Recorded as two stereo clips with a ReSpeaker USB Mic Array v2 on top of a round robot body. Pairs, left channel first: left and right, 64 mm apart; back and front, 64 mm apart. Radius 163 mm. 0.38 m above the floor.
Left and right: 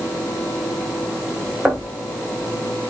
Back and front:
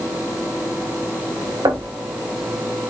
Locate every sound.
1.6 s knocking: 10° right, 3 m